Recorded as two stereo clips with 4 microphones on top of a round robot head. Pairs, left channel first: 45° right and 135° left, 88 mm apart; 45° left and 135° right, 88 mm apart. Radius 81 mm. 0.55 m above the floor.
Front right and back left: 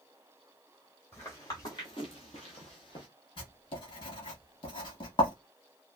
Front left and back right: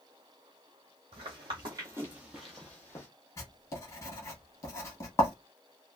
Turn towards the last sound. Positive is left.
turn(degrees=-15)